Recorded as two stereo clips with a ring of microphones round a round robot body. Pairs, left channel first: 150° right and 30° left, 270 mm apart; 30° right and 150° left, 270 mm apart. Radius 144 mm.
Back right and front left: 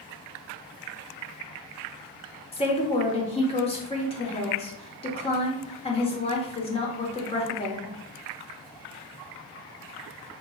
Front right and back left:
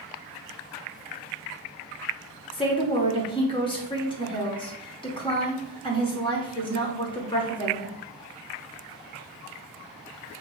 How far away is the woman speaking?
About 1.1 m.